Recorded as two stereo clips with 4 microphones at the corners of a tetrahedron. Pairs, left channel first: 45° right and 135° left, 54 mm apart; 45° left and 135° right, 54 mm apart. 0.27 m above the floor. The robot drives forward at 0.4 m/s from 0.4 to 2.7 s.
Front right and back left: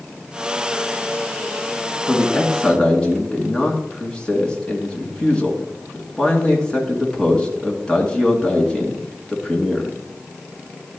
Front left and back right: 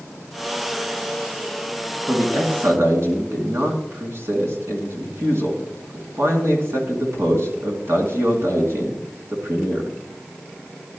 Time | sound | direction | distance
2.1 | a man speaking | 110° right | 2.5 m